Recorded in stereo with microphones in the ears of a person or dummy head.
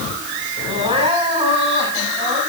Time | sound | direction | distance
0.7 | crying | 35° right (ahead or behind) | 6 m